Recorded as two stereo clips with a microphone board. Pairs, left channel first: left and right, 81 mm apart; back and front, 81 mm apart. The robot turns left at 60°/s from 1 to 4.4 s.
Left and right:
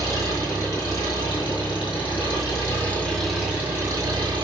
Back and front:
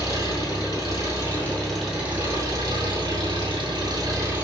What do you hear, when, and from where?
0.0 s an engine running: 140° left, 2.5 m; by 4.4 s 65° right, 2.5 m